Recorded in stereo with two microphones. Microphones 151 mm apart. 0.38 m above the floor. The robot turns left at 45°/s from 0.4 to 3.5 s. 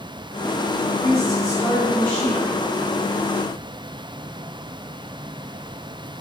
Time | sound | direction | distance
0.8 | a woman speaking | 25° left (ahead or behind) | 1.4 m